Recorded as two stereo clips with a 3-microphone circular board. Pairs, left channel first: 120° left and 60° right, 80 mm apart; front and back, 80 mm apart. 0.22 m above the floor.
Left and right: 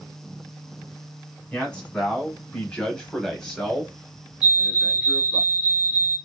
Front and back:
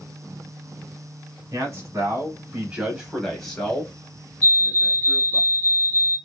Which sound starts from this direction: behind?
A man speaking, at 1.5 s.